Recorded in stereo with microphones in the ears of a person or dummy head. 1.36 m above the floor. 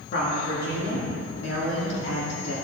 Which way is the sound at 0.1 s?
60° left (ahead or behind).